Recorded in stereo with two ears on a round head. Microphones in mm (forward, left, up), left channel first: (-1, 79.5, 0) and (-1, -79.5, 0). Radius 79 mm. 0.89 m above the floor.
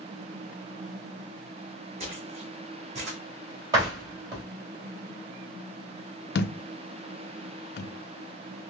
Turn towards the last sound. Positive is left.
turn(degrees=60)  # may be behind; listen again after turning